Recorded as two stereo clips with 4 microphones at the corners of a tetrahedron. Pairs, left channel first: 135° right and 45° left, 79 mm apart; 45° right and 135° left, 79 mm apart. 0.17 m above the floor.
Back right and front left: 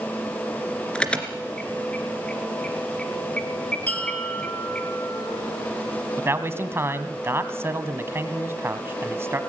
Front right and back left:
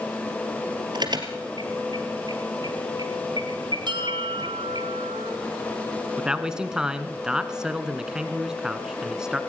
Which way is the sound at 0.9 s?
150° left.